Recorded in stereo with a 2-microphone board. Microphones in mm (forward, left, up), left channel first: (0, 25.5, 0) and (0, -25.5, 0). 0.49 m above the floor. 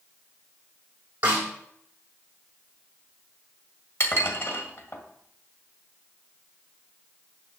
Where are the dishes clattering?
55° left (ahead or behind), 1.8 m.